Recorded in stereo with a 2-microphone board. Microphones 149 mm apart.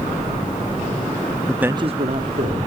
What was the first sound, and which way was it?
A man speaking, 10° left (ahead or behind).